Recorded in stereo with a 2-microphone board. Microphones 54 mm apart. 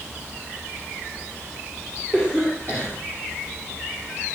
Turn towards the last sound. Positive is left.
turn(degrees=35)  # may be behind; listen again after turning